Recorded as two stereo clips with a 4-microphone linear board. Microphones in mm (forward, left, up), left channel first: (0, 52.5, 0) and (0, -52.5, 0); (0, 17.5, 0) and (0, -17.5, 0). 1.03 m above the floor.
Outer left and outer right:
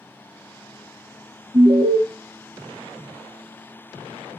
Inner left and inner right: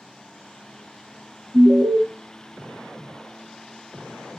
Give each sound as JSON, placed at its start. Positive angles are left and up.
{"t": 1.5, "sound": "an alarm", "side_deg": -50, "distance_m": 1.1}